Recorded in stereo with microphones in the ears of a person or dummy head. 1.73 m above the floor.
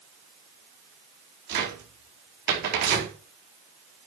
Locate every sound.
1.5 s a cupboard door: 60° right (ahead or behind), 5 m